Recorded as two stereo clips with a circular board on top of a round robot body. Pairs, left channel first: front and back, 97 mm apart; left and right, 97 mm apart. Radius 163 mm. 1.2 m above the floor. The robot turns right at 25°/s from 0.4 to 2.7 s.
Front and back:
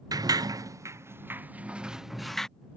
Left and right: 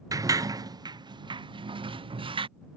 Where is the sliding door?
135° right; by 2.5 s 85° right.